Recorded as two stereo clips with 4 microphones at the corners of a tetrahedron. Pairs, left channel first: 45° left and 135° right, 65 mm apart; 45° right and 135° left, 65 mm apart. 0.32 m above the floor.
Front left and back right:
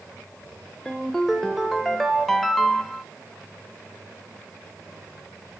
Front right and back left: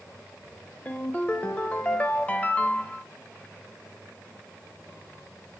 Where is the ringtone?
35° right, 0.7 m.